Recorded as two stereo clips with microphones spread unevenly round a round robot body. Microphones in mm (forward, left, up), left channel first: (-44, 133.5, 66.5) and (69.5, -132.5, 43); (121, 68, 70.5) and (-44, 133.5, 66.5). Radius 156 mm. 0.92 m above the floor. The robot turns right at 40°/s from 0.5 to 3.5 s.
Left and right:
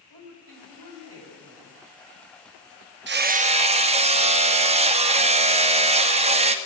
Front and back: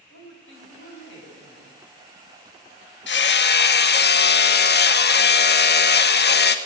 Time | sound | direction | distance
0.1 | a woman speaking | 45° right | 6 m
3.1 | hammering | 15° right | 1.6 m